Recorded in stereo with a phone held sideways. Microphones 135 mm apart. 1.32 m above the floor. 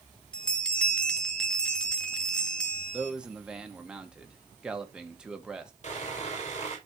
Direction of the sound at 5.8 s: 55° left (ahead or behind).